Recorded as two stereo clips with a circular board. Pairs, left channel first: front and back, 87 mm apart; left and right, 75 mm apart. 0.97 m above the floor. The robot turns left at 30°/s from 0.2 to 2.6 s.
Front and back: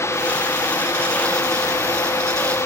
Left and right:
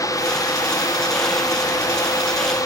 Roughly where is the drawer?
No drawer in this recording.